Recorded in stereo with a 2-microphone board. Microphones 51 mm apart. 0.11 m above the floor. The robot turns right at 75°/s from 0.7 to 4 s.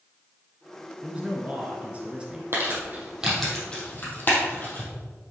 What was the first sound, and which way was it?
A man speaking, 20° right (ahead or behind).